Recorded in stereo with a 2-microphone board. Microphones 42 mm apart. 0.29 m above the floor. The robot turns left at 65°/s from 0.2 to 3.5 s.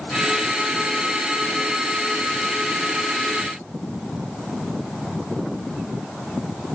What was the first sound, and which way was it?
Only background noise.